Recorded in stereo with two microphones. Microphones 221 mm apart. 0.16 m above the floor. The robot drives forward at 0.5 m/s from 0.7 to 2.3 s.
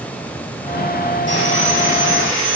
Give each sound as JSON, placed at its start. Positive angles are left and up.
{"t": 1.3, "sound": "sawing", "side_deg": 60, "distance_m": 4.5}